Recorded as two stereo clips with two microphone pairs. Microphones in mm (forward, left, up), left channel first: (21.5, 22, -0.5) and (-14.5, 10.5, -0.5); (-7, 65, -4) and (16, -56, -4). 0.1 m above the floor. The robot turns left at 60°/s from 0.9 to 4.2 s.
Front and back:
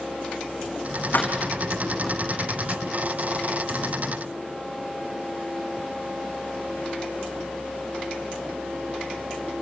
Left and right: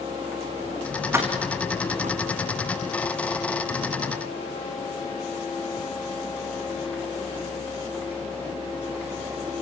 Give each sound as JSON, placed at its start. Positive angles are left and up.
{"t": 1.1, "sound": "keys jangling", "azimuth_deg": -10, "distance_m": 4.0}